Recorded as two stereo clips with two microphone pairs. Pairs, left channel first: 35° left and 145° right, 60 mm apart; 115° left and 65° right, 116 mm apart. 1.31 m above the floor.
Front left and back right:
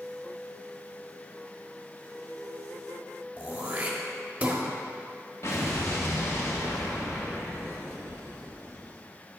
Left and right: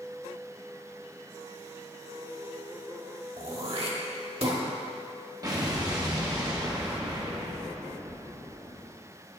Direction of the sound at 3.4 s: 85° right.